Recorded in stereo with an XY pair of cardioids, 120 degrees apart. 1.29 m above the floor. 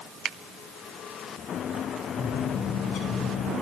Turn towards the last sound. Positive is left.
turn(degrees=65)